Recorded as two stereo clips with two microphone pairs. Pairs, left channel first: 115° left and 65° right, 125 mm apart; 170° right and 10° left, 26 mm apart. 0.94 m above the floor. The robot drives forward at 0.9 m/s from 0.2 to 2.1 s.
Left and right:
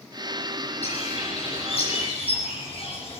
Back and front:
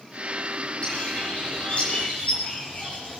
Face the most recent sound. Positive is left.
turn(degrees=150)